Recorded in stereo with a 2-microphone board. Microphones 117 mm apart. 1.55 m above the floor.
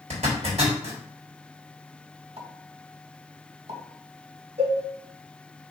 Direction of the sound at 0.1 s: 70° right (ahead or behind).